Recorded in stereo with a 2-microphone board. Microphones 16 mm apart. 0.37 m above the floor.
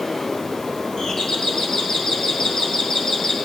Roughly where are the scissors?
I don't hear scissors.